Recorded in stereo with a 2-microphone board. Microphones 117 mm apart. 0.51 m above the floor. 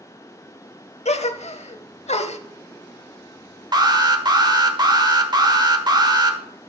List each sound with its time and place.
1.1 s a gasp: 65° left (ahead or behind), 0.7 m
3.7 s an alarm: 35° right (ahead or behind), 1.1 m